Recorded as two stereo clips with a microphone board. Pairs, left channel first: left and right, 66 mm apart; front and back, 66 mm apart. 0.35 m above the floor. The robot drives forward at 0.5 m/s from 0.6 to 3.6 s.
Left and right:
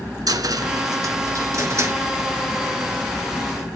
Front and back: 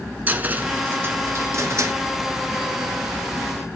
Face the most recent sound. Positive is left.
turn(degrees=-150)